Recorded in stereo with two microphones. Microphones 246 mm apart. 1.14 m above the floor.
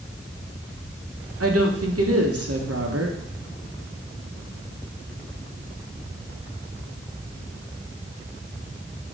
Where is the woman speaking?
70° right (ahead or behind), 1.2 m.